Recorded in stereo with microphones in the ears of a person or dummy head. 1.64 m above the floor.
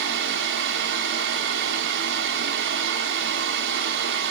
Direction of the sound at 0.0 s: 70° right (ahead or behind).